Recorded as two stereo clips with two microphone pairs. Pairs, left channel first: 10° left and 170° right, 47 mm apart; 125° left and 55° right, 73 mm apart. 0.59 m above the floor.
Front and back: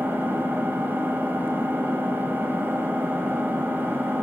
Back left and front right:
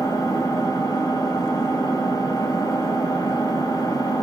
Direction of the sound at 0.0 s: 150° left.